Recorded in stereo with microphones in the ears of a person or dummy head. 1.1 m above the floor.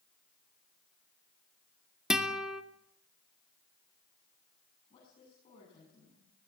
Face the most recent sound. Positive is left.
turn(degrees=35)  # may be behind; listen again after turning